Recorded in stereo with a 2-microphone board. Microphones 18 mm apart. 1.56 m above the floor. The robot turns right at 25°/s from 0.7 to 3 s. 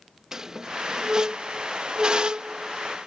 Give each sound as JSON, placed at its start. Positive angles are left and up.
{"t": 0.3, "sound": "a squeak", "side_deg": -25}